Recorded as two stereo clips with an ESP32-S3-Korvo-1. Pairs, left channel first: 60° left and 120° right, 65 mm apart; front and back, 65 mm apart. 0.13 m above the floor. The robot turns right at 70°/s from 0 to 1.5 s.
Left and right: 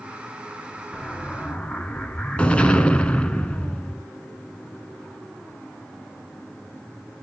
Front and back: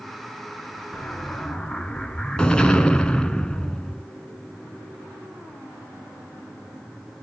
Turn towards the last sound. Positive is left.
turn(degrees=45)